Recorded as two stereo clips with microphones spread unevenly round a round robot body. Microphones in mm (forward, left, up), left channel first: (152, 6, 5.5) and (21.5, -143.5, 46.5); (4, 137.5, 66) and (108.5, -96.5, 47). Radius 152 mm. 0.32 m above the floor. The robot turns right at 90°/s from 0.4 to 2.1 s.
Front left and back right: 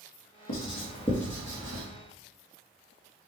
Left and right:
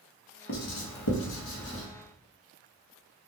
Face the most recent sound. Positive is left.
turn(degrees=-145)